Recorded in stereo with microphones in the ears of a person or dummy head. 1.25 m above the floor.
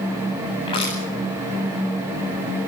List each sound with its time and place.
0.7 s crushing: 25° left (ahead or behind), 10 m